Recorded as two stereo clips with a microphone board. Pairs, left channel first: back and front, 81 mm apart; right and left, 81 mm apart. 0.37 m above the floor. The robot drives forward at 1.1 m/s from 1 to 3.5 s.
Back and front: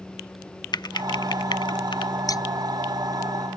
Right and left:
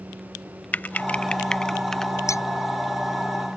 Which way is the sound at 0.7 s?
160° right.